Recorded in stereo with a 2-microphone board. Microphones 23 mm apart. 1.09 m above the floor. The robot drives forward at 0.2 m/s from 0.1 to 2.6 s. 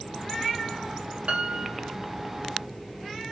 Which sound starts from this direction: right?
A piano, at 1.3 s.